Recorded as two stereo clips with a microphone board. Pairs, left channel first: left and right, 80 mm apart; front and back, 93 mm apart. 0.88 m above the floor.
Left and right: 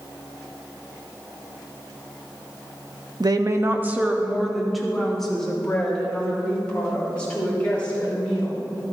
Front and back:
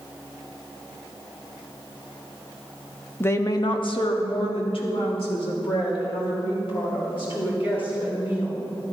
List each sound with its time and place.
3.2 s a woman speaking: 65° right, 0.8 m; by 8.6 s 15° left, 6 m